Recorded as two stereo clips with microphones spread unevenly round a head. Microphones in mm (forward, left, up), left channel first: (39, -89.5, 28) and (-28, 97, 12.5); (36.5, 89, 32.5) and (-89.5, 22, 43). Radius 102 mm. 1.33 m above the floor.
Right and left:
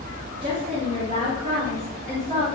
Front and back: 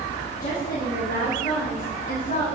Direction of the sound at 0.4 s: 50° left.